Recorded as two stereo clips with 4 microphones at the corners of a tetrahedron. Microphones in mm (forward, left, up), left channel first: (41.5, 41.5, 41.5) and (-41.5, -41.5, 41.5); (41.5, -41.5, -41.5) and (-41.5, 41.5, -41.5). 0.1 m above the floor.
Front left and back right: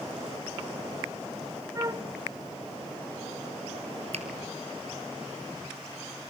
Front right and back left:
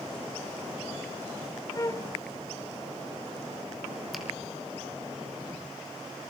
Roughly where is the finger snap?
Behind right.